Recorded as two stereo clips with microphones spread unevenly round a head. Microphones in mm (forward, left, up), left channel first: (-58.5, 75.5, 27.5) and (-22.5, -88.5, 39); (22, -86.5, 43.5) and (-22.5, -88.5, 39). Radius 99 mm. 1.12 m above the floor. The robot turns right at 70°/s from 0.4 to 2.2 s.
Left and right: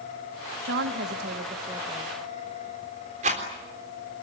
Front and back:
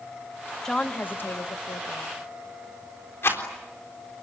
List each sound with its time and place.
0.7 s a woman speaking: 80° right, 1.4 m; by 2.1 s 20° left, 1.4 m
3.2 s a rattle: 25° right, 3.5 m